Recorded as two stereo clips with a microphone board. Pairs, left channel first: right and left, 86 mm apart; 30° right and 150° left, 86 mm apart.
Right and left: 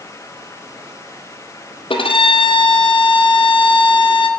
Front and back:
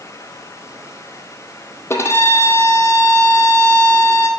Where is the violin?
90° right, 1.7 m.